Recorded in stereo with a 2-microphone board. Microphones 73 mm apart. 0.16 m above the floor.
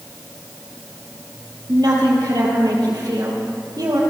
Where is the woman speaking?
70° right (ahead or behind), 4 m; by 4.0 s 60° right (ahead or behind), 4.5 m.